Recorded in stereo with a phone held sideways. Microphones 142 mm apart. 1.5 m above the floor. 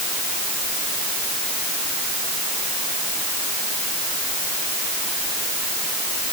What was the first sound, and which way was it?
Only background noise.